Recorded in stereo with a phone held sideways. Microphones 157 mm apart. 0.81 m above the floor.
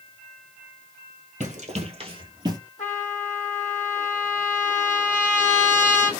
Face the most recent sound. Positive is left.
turn(degrees=50)  # may be behind; listen again after turning